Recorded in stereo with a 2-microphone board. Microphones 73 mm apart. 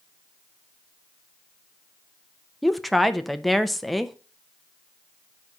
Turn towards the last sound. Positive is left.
turn(degrees=0)  # may be behind; listen again after turning